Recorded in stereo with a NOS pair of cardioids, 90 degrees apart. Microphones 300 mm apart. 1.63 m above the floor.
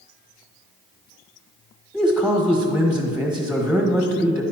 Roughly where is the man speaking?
Ahead.